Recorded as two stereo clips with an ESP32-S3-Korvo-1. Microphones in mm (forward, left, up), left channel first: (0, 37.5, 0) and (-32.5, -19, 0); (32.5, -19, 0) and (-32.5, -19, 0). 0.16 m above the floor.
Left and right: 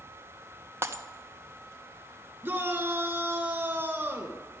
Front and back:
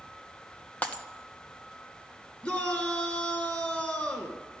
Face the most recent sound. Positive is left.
turn(degrees=-65)